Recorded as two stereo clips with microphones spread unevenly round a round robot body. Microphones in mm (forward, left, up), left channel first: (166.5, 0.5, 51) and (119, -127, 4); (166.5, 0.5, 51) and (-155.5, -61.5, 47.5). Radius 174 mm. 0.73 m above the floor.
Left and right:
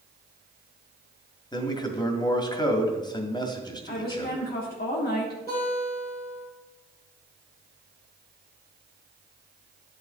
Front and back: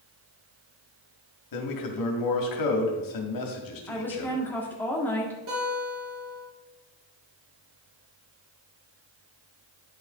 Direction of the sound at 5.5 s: 140° left.